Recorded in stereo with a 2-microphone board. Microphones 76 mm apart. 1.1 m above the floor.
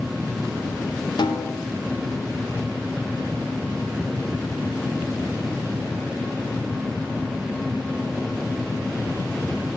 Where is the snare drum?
80° left, 1.8 m.